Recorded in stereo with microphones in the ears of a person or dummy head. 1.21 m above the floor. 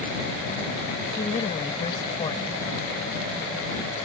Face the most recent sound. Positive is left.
turn(degrees=30)  # may be behind; listen again after turning